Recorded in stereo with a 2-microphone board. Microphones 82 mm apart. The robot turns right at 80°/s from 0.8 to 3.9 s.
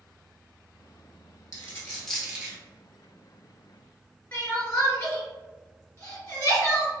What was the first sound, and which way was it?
A dropped coin, 45° left (ahead or behind).